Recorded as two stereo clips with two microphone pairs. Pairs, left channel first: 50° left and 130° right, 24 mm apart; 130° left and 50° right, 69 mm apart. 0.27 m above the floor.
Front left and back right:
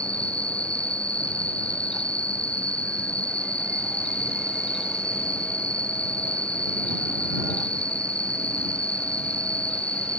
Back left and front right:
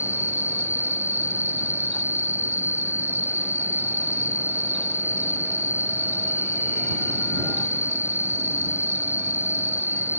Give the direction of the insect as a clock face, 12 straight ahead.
12 o'clock.